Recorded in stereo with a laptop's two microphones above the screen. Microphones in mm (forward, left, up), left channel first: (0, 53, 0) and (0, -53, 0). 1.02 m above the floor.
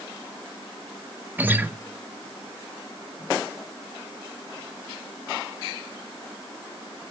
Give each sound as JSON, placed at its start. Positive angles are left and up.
{"t": 1.4, "sound": "a guitar", "side_deg": -20, "distance_m": 0.5}